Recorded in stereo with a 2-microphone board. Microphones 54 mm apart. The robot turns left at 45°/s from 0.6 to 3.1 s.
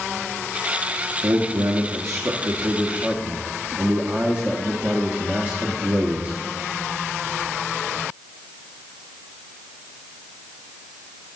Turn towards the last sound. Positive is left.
turn(degrees=-150)